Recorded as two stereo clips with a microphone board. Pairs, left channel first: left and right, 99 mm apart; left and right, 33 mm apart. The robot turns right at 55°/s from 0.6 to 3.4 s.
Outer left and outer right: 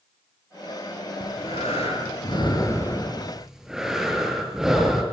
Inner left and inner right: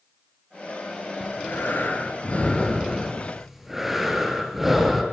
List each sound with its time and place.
1.2 s breathing: 65° left, 6.5 m; by 5.0 s 175° right, 6.5 m